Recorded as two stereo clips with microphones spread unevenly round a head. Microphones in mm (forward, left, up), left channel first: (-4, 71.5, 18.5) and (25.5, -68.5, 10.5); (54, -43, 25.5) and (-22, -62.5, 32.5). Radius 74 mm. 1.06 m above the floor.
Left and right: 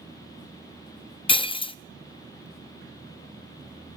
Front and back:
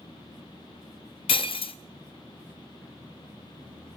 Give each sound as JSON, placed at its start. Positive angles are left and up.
{"t": 1.3, "sound": "breaking glass", "azimuth_deg": 45, "distance_m": 0.8}